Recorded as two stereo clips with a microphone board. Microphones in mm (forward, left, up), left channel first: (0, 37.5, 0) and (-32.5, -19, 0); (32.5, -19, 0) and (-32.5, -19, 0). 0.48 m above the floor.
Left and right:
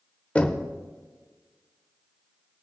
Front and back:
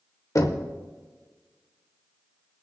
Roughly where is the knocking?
Ahead.